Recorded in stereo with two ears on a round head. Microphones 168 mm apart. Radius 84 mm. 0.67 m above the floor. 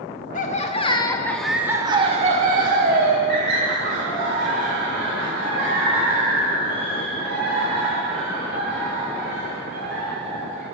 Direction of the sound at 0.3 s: 40° left (ahead or behind).